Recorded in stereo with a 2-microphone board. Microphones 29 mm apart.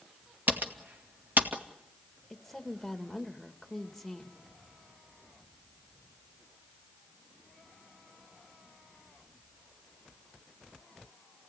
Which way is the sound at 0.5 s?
75° right (ahead or behind).